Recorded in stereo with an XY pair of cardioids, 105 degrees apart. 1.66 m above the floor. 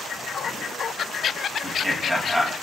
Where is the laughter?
10° right, 2.5 m.